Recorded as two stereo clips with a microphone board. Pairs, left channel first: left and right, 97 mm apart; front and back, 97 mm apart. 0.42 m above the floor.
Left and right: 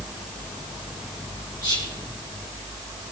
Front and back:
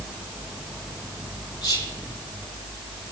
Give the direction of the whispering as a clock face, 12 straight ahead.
10 o'clock.